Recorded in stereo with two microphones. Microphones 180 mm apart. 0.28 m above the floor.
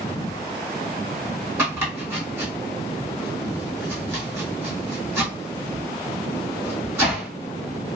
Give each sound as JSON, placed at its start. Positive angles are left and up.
{"t": 1.6, "sound": "chopping", "side_deg": -10, "distance_m": 1.8}